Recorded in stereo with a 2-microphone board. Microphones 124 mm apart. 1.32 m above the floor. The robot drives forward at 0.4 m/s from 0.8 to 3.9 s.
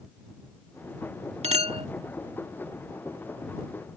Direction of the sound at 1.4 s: 60° right (ahead or behind).